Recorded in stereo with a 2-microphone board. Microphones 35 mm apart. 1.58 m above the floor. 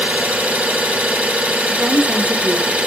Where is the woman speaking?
60° right (ahead or behind), 1.8 m.